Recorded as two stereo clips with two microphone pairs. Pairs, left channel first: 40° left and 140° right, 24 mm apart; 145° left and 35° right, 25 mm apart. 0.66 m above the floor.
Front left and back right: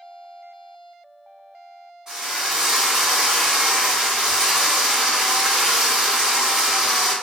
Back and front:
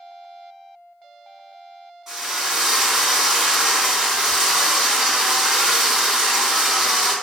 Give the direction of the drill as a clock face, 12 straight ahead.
3 o'clock.